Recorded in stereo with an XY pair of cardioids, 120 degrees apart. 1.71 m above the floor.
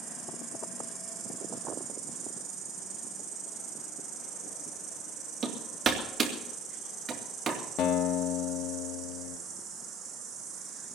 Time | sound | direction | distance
0.0 | an insect | 50° right | 6 m
5.4 | hammering | 40° right | 2.5 m
7.8 | a guitar | 65° left | 1.4 m